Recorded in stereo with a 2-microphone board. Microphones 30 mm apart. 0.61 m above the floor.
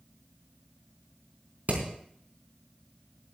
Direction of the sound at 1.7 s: 70° right (ahead or behind).